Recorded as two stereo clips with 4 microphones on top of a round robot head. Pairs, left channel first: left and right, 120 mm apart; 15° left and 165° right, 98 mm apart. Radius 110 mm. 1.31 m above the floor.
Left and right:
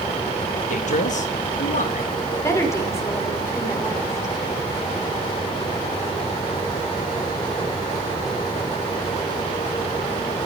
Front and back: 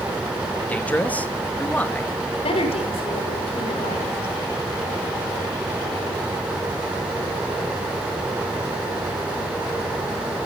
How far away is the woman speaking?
About 5.5 m.